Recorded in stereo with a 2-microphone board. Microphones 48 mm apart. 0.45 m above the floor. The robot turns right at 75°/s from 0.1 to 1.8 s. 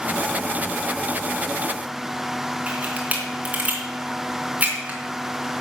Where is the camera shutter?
30° right (ahead or behind), 4 m.